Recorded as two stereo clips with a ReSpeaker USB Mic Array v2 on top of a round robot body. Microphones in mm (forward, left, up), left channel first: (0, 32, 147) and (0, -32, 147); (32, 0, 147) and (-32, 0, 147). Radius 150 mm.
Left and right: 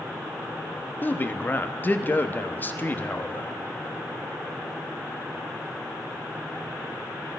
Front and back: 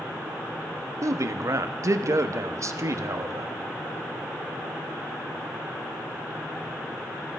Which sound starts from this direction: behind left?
A man speaking, at 1.0 s.